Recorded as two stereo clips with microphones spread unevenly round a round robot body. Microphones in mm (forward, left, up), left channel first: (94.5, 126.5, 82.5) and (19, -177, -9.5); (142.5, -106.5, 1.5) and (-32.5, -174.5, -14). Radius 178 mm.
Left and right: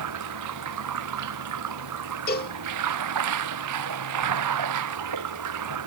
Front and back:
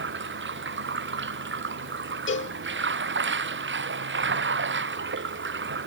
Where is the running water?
145° right.